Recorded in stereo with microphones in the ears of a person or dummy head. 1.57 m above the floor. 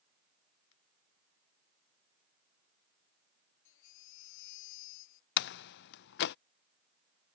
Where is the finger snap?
75° left (ahead or behind).